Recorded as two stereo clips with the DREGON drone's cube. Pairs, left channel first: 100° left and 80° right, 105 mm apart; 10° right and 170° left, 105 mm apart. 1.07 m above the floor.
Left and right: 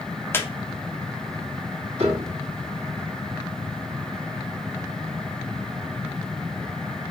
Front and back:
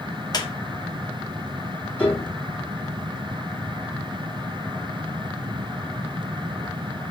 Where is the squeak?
30° left, 0.5 m.